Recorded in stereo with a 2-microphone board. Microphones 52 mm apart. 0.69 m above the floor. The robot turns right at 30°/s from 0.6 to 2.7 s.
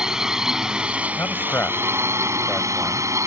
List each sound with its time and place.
0.0 s a drone: 165° right; by 3.3 s 105° right
1.2 s a man speaking: 55° left (ahead or behind); by 3.1 s 10° left (ahead or behind)